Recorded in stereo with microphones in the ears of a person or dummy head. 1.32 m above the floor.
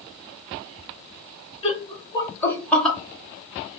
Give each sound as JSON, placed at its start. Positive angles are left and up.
{"t": 1.6, "sound": "laughter", "side_deg": 35, "distance_m": 1.2}